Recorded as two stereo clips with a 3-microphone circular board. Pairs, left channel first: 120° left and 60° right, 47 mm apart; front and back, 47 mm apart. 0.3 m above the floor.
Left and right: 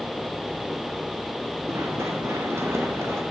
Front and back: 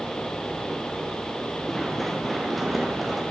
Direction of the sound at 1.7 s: 85° right.